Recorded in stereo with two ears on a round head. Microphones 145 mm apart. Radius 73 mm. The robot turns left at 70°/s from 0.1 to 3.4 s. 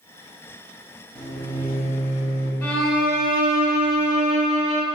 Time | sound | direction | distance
1.1 | a microwave | 165° left | 0.9 m
2.6 | a violin | 15° left | 1.1 m